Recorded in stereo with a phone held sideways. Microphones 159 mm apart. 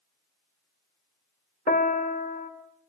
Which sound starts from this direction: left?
A piano, at 1.7 s.